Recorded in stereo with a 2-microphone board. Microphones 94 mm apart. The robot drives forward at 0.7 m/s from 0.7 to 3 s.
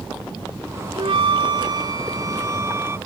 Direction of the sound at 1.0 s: 70° right (ahead or behind).